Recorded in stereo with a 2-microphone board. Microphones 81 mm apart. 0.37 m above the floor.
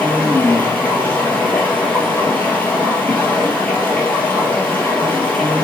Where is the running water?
20° left (ahead or behind), 3 m.